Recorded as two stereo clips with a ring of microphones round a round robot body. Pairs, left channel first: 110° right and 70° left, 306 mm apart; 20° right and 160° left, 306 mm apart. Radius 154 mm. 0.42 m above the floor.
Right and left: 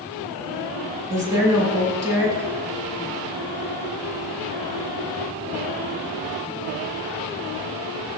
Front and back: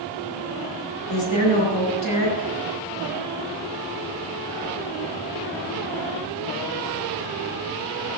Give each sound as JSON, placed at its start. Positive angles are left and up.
{"t": 1.1, "sound": "a woman speaking", "azimuth_deg": -15, "distance_m": 5.5}